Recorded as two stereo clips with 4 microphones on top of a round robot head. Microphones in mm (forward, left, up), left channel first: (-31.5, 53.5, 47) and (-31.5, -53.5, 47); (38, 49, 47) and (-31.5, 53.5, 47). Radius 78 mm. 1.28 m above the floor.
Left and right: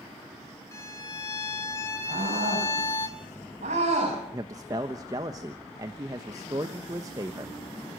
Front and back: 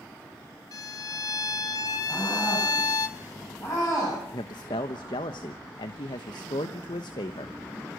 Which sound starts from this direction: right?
A scream, at 2.1 s.